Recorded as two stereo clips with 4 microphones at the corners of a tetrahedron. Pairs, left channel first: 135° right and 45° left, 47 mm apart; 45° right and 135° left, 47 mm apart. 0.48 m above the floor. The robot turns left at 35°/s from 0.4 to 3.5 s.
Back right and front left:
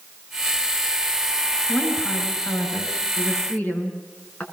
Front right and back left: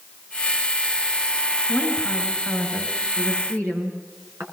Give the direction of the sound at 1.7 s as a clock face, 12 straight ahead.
3 o'clock.